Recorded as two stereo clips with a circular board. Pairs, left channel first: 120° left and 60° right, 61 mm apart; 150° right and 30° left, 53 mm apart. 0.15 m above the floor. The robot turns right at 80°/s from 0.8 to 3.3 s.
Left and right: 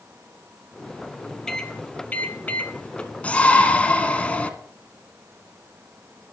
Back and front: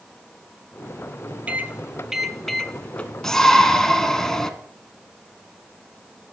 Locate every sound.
1.5 s a microwave: 45° left, 1.0 m; by 3.1 s straight behind, 1.0 m
3.2 s a shout: 140° left, 1.3 m; by 4.5 s 145° left, 1.3 m